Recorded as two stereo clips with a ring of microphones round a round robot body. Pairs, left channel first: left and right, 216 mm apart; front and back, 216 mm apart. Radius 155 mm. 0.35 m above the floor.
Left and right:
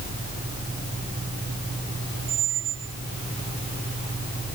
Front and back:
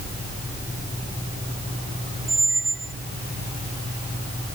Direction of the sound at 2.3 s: 135° right.